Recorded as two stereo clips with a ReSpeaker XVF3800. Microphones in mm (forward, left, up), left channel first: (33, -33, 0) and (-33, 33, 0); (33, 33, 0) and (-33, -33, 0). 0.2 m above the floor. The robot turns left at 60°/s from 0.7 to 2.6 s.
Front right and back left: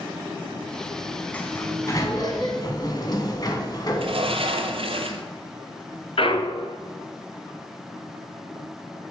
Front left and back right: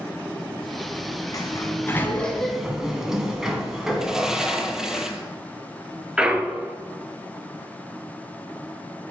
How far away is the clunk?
About 0.9 m.